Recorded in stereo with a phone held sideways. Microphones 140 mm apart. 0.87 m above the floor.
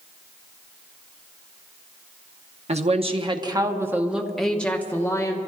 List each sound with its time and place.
2.7 s a woman speaking: 55° right (ahead or behind), 1.1 m; by 5.4 s 25° left (ahead or behind), 1.4 m